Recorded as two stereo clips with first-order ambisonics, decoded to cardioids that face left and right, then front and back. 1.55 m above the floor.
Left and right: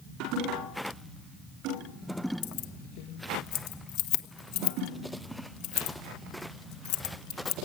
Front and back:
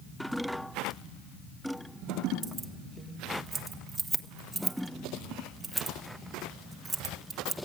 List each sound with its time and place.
2.4 s keys jangling: 95° left, 1.2 m